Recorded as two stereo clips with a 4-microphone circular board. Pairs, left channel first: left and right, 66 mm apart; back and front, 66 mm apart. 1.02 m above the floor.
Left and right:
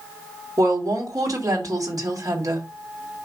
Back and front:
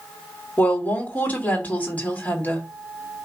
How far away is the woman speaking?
About 3 m.